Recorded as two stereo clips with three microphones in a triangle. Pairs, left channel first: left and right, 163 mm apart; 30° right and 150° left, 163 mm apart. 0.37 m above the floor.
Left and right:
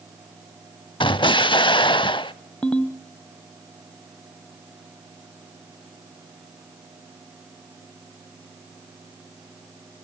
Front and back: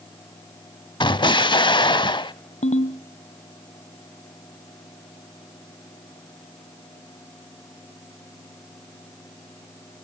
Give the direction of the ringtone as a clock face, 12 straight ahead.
12 o'clock.